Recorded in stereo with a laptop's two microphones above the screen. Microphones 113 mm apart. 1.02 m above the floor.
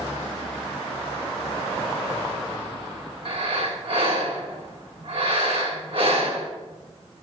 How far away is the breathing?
About 2 m.